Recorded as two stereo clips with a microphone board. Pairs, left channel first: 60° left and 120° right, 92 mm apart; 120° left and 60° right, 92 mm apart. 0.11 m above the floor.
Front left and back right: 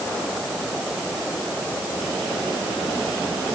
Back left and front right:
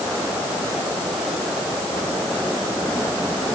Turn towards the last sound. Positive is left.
No sound to turn to.